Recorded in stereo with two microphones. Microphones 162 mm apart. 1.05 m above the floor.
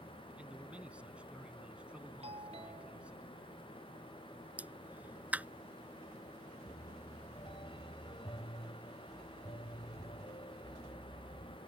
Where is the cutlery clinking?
No cutlery clinking in this recording.